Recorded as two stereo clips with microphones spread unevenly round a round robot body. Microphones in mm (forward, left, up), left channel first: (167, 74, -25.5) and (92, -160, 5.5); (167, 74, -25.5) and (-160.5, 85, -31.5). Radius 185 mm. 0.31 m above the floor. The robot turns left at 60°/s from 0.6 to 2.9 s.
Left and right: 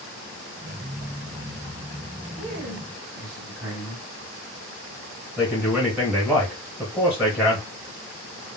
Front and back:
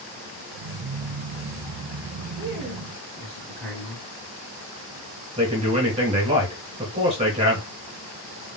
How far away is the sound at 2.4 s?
About 2 m.